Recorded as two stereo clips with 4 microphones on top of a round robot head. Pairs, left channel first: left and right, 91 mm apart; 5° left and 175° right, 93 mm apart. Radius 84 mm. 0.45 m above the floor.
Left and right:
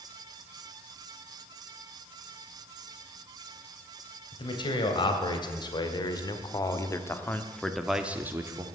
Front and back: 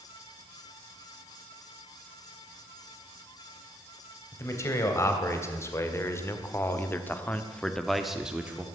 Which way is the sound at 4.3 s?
65° left.